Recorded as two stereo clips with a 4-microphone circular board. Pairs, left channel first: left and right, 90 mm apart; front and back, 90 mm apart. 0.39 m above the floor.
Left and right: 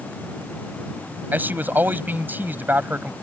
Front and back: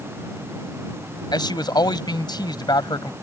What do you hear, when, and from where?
1.3 s a man speaking: 25° right